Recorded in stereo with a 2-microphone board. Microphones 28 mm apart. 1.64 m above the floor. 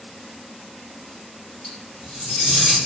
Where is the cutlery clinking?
40° left (ahead or behind), 1.3 m.